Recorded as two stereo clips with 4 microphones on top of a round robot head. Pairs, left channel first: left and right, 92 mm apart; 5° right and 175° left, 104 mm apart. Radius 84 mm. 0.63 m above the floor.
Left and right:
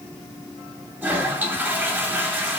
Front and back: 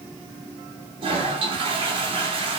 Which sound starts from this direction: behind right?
A toilet flushing, at 1.0 s.